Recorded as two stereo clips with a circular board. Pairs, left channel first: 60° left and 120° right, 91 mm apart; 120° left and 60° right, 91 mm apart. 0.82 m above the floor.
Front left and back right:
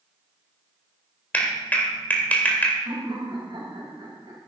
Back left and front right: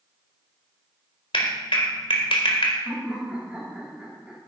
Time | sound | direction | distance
1.3 | a clap | 135° left | 2 m
2.9 | laughter | 135° right | 5 m